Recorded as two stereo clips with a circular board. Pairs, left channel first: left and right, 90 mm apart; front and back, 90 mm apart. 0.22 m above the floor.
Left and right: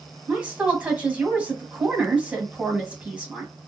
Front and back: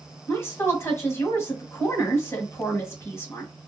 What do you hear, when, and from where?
0.3 s a woman speaking: 25° right, 1.7 m